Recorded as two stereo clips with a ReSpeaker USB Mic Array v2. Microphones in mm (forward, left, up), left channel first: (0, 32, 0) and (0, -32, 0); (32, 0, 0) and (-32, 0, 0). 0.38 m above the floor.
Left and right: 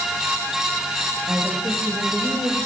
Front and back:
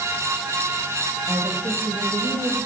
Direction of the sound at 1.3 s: 160° right.